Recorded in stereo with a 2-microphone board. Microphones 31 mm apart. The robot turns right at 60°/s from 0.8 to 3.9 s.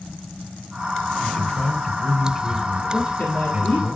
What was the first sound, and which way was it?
A man speaking, 115° left.